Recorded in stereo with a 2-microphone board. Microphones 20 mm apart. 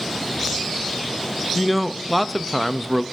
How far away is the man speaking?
About 0.5 m.